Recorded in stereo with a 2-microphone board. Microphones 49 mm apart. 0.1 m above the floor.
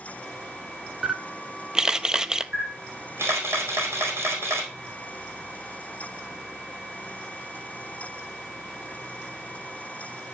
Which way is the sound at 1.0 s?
15° right (ahead or behind).